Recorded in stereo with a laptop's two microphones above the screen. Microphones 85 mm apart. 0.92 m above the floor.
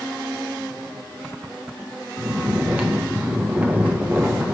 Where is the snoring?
15° right (ahead or behind), 1.1 m.